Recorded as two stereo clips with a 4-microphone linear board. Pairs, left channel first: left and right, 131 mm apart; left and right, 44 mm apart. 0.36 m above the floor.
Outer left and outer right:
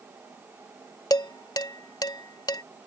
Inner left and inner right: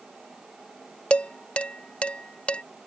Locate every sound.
1.1 s dishes clattering: 30° left (ahead or behind)